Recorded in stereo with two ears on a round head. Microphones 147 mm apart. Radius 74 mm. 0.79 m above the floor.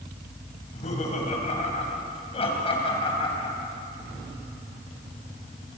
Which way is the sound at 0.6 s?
50° left (ahead or behind).